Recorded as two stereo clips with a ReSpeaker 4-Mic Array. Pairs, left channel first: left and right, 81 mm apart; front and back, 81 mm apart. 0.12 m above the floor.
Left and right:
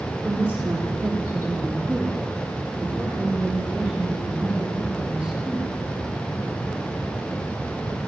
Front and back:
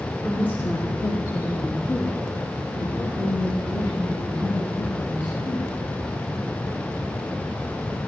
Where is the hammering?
No hammering in this recording.